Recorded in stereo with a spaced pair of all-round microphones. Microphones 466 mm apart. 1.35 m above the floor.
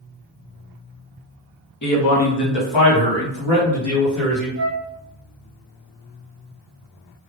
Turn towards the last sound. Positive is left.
turn(degrees=-25)  # may be behind; listen again after turning